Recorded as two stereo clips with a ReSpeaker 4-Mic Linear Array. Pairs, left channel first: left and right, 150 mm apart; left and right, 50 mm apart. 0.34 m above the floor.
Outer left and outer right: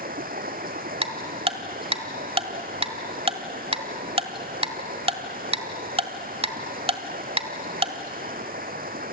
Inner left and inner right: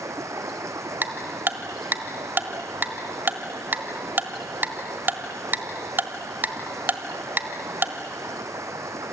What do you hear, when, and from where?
0.0 s running water: 75° right (ahead or behind), 2 m
1.0 s ticking: 40° right (ahead or behind), 1.4 m